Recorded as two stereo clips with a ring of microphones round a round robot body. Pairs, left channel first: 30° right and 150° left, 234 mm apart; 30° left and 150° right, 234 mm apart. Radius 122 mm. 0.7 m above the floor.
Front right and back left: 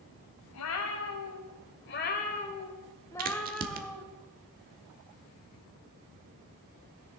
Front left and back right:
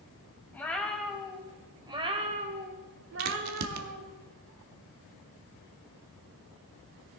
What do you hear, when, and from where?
0.5 s a cat meowing: 55° right, 1.6 m; by 4.0 s 130° right, 1.4 m
3.2 s a crack: 155° right, 1.0 m